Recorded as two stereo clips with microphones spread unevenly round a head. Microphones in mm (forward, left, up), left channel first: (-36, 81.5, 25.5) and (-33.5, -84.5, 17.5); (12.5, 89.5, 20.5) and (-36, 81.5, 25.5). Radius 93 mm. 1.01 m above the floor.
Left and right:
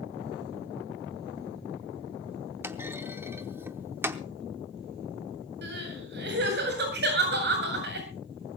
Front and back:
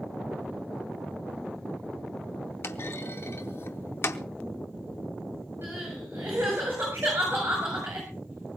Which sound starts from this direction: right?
Crying, at 5.6 s.